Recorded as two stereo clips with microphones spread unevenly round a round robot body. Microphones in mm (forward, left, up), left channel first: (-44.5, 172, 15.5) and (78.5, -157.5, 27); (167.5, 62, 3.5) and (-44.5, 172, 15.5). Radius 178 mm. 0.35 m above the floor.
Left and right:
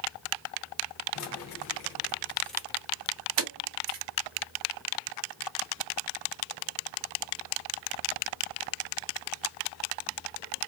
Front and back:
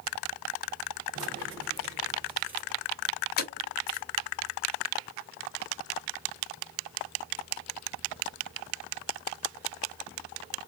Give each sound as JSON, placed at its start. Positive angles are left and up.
{"t": 1.1, "sound": "keys jangling", "azimuth_deg": 145, "distance_m": 0.9}